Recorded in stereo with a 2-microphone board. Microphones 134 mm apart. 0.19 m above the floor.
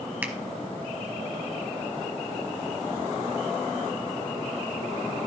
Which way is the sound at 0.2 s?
10° right (ahead or behind).